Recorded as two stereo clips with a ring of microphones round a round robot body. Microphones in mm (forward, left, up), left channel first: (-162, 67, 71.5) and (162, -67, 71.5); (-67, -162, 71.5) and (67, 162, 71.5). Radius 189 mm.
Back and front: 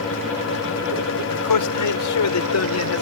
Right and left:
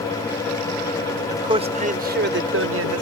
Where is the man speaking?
145° left; by 3.0 s 110° left.